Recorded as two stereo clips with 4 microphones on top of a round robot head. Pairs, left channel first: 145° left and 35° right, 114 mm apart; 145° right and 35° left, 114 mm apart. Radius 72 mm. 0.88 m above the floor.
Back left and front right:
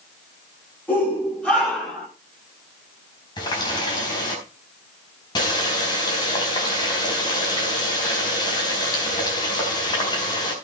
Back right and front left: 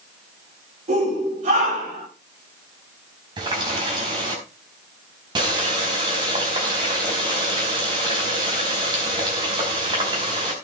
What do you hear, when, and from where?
0.9 s a shout: 65° left, 7 m; by 2.1 s 60° left, 7.5 m
3.4 s a running tap: 90° left, 4.5 m